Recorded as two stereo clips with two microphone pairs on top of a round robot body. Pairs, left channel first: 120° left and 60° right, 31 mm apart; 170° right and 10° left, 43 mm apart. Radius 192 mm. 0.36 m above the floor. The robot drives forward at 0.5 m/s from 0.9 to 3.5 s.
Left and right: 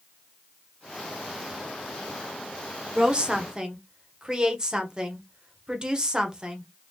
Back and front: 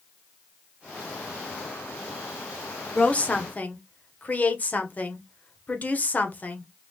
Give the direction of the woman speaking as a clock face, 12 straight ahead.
4 o'clock.